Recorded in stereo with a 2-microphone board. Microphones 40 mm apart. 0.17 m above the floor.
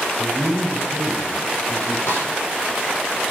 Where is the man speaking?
70° left (ahead or behind), 3.5 m; by 2.0 s 75° left (ahead or behind), 5.5 m.